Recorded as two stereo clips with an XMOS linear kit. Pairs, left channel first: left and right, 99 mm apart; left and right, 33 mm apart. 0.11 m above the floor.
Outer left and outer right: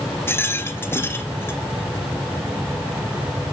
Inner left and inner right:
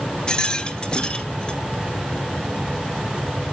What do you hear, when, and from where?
0.3 s a rattle: 25° left (ahead or behind), 0.7 m